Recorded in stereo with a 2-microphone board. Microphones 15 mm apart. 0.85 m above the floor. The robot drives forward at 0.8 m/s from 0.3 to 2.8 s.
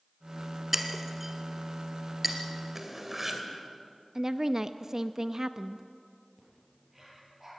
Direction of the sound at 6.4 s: 10° right (ahead or behind).